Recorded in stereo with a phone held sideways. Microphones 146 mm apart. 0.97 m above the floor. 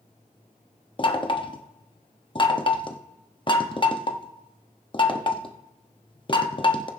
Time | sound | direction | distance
1.0 | knocking | 35° left (ahead or behind) | 0.9 m